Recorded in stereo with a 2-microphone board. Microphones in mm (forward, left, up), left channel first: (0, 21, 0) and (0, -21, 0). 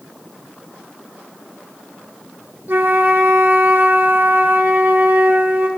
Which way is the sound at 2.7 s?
65° right (ahead or behind).